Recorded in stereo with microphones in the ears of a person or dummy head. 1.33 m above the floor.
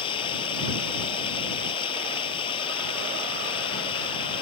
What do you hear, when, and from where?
0.0 s running water: 30° left (ahead or behind)